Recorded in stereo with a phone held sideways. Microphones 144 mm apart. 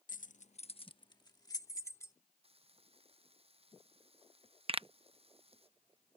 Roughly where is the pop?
Right.